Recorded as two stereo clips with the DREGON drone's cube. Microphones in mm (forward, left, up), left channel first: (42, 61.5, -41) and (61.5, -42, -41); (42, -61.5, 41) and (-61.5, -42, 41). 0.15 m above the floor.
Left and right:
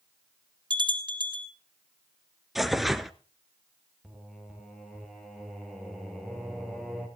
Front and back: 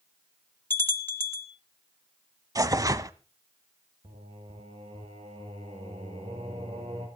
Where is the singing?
165° right, 4 m.